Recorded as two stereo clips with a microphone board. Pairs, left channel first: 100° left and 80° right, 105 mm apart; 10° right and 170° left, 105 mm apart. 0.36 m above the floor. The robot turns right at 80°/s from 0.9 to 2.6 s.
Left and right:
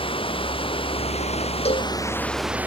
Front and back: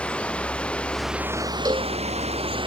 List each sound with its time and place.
0.0 s running water: 70° left; by 2.7 s 155° right
1.6 s a cowbell: 110° left; by 1.9 s 135° left